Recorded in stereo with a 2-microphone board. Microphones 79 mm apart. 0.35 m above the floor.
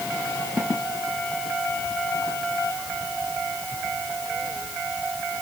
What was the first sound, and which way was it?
Only background noise.